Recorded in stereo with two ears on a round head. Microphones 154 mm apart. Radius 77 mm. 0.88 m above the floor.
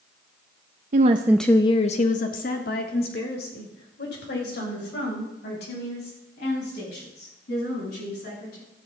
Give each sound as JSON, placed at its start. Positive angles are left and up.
{"t": 0.9, "sound": "a woman speaking", "side_deg": -50, "distance_m": 0.7}